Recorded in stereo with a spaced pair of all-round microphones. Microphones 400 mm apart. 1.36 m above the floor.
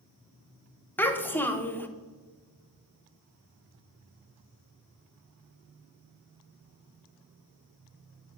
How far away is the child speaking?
About 0.5 m.